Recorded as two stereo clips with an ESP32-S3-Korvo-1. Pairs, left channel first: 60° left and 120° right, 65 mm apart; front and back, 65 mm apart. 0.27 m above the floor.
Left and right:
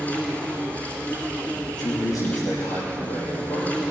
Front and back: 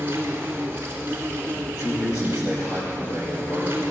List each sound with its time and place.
0.0 s an insect: 125° left, 3 m
1.7 s a man speaking: 40° left, 8 m